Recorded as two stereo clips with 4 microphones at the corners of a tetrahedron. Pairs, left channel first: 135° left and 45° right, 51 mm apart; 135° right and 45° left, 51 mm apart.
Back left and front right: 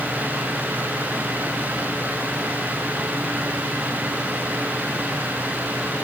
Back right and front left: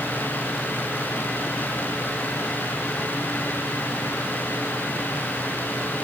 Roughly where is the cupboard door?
I don't hear a cupboard door.